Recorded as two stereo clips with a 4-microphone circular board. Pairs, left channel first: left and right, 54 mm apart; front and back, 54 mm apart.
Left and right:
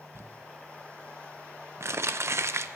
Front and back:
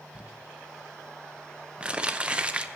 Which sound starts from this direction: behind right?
Crumpling, at 0.1 s.